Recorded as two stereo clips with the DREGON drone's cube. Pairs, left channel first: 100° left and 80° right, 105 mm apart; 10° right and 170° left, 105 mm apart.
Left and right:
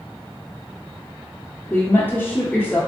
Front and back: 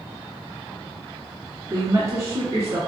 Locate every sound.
1.7 s a woman speaking: 150° left, 1.2 m